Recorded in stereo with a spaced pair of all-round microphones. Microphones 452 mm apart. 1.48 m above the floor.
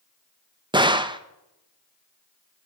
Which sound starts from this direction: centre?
A gunshot, at 0.7 s.